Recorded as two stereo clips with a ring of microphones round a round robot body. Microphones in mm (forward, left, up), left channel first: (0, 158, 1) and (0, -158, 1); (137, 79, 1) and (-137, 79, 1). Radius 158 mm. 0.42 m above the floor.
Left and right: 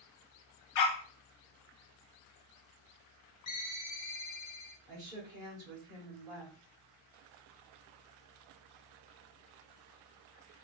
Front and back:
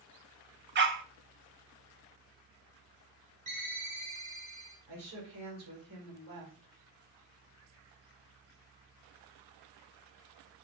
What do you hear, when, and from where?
0.8 s a dog barking: 125° left, 0.6 m
3.5 s a ringtone: 120° left, 1.2 m
4.9 s a woman speaking: 165° right, 1.8 m